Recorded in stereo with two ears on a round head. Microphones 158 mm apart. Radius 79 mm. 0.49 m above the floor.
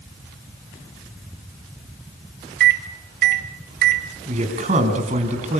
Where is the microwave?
60° right (ahead or behind), 1.7 m.